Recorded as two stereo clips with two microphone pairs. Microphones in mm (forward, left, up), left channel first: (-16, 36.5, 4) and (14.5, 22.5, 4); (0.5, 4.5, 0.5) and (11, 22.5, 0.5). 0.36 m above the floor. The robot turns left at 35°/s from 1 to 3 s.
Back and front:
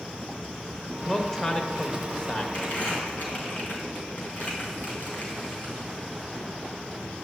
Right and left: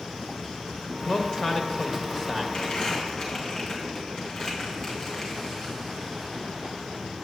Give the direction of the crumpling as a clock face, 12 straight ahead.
6 o'clock.